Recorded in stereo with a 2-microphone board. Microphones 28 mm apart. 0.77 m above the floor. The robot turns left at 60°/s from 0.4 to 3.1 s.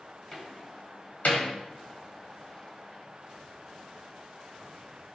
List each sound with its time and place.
0.3 s a door slam: 15° left (ahead or behind), 2.5 m; by 1.5 s 80° left, 2.5 m